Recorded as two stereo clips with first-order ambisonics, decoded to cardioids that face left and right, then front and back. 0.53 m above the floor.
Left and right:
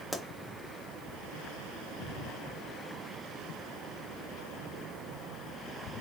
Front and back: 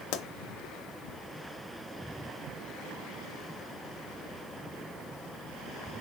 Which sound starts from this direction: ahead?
A pop, at 0.1 s.